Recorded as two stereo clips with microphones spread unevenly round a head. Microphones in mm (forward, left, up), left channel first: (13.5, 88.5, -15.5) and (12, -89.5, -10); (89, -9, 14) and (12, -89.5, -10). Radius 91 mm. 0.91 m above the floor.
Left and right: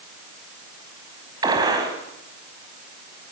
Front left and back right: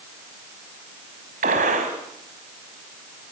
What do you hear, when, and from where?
1.4 s a gunshot: 160° right, 5 m